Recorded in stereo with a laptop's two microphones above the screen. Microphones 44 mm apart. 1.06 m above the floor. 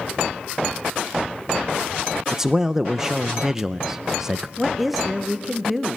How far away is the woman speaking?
About 0.8 m.